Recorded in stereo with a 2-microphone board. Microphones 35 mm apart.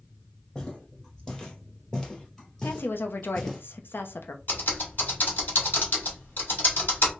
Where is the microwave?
I don't hear a microwave.